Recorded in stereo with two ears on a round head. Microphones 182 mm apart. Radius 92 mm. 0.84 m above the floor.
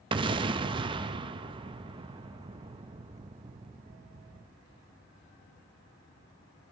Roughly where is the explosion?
Right.